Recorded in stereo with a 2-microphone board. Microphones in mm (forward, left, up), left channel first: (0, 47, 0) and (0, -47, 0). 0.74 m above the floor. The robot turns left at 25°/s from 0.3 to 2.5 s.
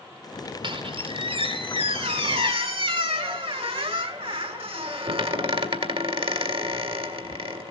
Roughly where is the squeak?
Ahead right.